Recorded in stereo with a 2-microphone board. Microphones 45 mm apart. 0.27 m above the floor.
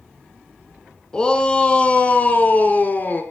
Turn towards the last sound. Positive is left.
turn(degrees=45)  # may be behind; listen again after turning